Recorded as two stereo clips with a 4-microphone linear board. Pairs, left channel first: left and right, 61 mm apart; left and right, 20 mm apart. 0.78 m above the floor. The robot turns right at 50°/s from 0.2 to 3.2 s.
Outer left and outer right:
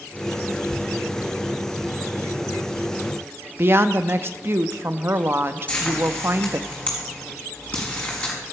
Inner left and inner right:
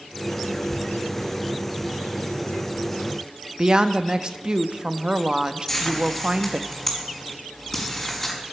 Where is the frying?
25° left (ahead or behind), 4.5 m.